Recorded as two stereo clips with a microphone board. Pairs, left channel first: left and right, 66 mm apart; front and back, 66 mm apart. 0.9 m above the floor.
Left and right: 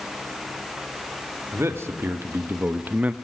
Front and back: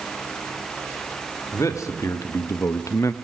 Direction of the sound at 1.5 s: 40° right.